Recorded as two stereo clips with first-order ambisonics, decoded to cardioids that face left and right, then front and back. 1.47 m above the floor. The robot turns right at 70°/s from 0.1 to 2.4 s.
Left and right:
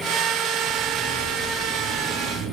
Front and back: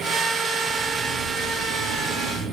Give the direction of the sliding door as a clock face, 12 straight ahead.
8 o'clock.